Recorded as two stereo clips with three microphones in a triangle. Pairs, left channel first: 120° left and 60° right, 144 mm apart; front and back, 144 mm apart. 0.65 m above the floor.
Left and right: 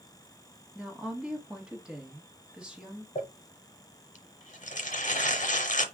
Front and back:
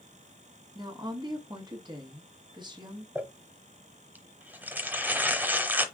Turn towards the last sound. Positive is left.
turn(degrees=105)